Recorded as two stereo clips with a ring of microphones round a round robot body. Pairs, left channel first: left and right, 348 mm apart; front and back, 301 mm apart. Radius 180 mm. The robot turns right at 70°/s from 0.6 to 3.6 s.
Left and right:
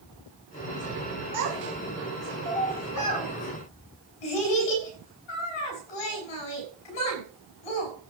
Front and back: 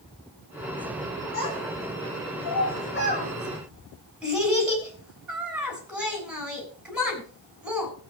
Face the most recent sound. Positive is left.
turn(degrees=95)